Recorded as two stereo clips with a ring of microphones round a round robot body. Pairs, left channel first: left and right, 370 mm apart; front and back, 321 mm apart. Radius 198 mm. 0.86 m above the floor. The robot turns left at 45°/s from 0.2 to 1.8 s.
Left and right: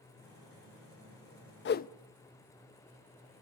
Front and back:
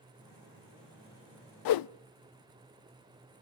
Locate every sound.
1.6 s a whoosh: 30° left, 0.5 m; by 1.9 s 20° left, 0.5 m